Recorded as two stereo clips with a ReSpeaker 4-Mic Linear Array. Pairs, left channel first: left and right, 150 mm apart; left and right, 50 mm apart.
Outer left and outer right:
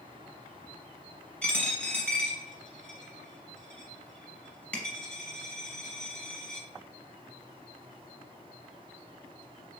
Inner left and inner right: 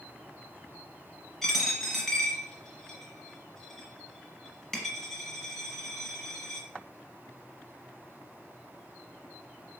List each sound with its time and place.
1.4 s a dropped coin: 10° left (ahead or behind), 1.4 m